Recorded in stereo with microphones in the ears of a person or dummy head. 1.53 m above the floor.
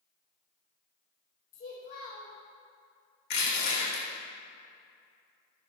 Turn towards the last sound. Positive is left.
turn(degrees=70)  # may be behind; listen again after turning